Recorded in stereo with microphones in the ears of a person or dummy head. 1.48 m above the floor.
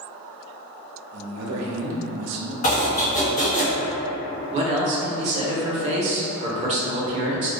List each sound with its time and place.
1.1 s a man speaking: 80° right, 0.6 m
2.6 s chopping: 50° left (ahead or behind), 0.6 m
4.5 s a man speaking: 40° right (ahead or behind), 0.6 m